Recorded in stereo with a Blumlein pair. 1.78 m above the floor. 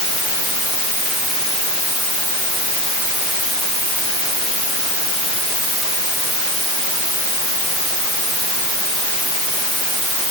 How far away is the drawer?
I don't hear a drawer.